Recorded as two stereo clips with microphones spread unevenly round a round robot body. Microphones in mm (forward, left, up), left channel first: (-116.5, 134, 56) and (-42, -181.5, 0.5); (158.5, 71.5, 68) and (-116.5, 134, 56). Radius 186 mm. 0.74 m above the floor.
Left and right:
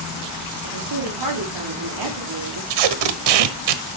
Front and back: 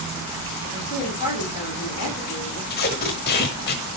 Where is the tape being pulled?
75° right, 1.2 m.